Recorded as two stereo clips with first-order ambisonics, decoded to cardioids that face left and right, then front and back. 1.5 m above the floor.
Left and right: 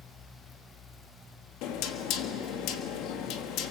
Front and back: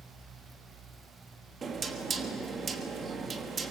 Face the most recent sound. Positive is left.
turn(degrees=110)